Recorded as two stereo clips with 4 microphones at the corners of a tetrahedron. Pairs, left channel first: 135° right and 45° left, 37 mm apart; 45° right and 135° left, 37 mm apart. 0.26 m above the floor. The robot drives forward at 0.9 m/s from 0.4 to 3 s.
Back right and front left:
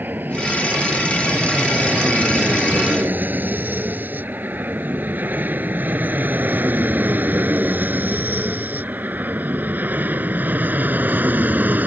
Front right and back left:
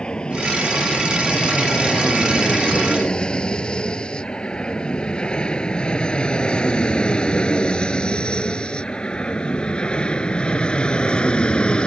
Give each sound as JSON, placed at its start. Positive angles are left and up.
{"t": 0.0, "sound": "an aircraft", "azimuth_deg": 20}